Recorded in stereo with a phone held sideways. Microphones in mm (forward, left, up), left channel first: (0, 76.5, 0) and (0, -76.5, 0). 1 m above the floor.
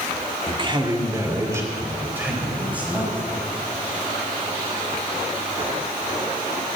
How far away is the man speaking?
About 1.9 m.